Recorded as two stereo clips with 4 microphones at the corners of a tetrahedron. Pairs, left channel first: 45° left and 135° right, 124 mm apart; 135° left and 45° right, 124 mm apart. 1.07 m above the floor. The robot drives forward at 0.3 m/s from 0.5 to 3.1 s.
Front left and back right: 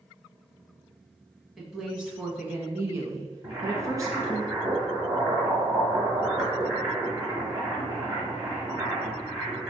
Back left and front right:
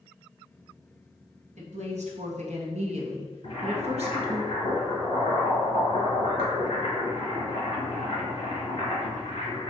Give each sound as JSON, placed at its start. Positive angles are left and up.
{"t": 1.6, "sound": "a woman speaking", "azimuth_deg": -45, "distance_m": 1.1}
{"t": 3.4, "sound": "boiling", "azimuth_deg": 170, "distance_m": 2.0}